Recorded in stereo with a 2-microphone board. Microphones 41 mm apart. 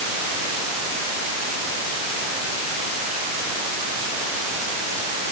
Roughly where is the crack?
No crack in this recording.